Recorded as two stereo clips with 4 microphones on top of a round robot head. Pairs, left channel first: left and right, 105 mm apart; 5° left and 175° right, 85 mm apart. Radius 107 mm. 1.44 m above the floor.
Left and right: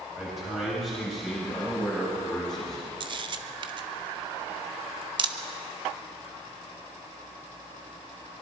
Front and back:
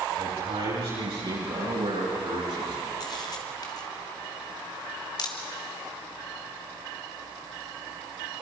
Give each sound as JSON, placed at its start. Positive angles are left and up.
{"t": 0.2, "sound": "a man speaking", "azimuth_deg": 180, "distance_m": 9.0}
{"t": 3.0, "sound": "a camera shutter", "azimuth_deg": -50, "distance_m": 1.1}